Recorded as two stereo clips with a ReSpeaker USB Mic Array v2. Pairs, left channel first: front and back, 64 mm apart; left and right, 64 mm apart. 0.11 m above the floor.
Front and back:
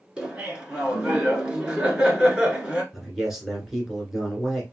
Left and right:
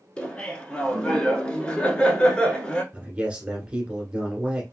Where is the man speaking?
105° right, 1.4 m.